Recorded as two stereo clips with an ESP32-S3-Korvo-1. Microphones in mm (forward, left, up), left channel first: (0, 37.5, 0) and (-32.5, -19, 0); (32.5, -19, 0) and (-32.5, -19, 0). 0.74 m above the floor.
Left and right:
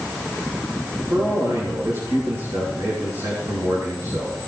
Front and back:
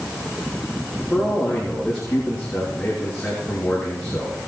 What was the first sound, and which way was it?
A man speaking, 85° right.